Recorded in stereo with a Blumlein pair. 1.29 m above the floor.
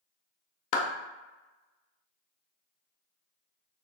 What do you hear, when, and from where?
0.7 s a clap: 45° left, 0.5 m